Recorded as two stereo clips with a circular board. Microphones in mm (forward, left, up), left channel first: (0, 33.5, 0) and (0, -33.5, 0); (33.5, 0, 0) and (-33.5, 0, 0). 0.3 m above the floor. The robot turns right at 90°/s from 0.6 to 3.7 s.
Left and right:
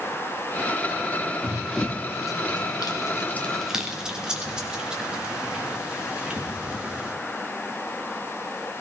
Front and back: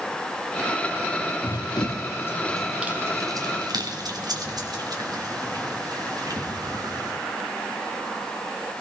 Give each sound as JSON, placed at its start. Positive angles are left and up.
{"t": 1.4, "sound": "running footsteps", "azimuth_deg": -35, "distance_m": 1.4}